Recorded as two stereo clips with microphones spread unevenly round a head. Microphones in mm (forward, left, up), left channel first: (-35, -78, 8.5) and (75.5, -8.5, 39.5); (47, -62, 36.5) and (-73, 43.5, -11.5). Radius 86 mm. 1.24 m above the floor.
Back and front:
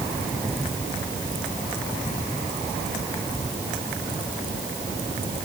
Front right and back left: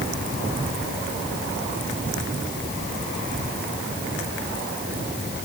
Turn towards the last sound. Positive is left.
No sound to turn to.